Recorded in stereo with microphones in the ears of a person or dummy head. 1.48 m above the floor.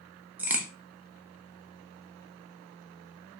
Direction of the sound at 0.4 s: 10° right (ahead or behind).